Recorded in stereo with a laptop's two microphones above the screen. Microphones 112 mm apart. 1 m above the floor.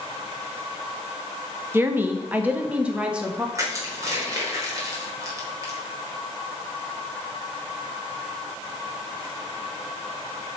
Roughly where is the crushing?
Right.